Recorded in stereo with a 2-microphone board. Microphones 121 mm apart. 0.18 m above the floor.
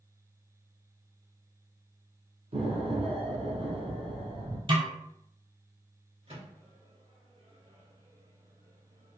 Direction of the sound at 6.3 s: 60° right (ahead or behind).